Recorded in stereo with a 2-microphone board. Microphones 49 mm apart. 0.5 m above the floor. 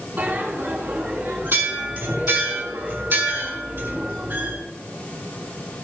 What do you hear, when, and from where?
0.2 s a bell: 45° right (ahead or behind), 5 m